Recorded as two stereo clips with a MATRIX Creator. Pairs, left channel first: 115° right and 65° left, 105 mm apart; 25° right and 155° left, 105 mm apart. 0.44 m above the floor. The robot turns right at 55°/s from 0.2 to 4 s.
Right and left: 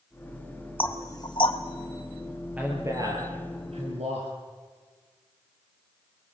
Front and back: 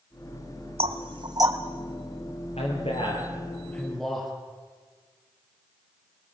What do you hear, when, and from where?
0.8 s knocking: 175° left, 1.7 m; by 1.6 s 140° right, 1.7 m
2.6 s a man speaking: 10° right, 8 m; by 4.3 s 70° left, 8 m